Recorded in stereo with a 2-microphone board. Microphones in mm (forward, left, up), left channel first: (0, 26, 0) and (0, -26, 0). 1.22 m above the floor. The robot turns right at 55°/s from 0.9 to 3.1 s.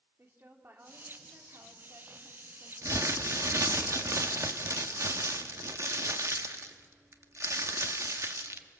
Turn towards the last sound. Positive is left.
turn(degrees=-65)  # may be behind; listen again after turning